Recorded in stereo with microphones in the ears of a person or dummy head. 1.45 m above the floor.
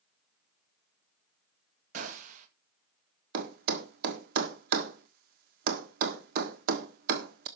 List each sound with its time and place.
1.9 s a gunshot: 50° right (ahead or behind), 1.9 m
3.3 s a thud: 55° right (ahead or behind), 1.5 m